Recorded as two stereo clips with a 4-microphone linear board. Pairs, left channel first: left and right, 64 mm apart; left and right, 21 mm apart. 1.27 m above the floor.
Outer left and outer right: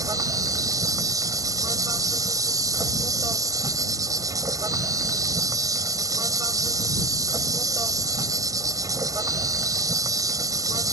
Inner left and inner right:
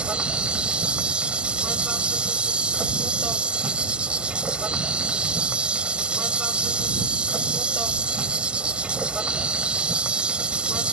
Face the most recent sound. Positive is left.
turn(degrees=-60)  # may be behind; listen again after turning